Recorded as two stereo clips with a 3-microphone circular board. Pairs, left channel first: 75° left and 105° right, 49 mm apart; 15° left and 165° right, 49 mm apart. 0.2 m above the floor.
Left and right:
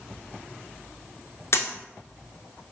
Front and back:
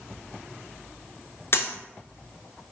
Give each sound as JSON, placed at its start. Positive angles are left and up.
{"t": 1.5, "sound": "a dropped coin", "azimuth_deg": 50, "distance_m": 0.5}